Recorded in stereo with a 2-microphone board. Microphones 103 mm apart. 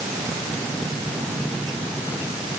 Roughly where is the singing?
I don't hear singing.